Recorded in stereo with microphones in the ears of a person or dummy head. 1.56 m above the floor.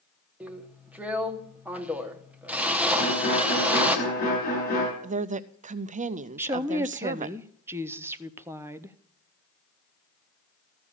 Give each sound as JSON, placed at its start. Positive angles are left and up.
{"t": 0.4, "sound": "a drill", "side_deg": -5, "distance_m": 0.9}
{"t": 3.0, "sound": "a violin", "side_deg": 40, "distance_m": 5.0}
{"t": 5.0, "sound": "a woman speaking", "side_deg": -30, "distance_m": 0.5}
{"t": 6.4, "sound": "a woman speaking", "side_deg": -15, "distance_m": 0.7}